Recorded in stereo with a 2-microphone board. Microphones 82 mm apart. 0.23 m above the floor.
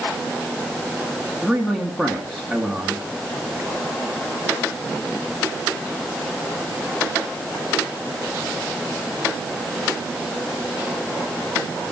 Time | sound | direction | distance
1.4 | a man speaking | centre (ahead or behind) | 2.5 m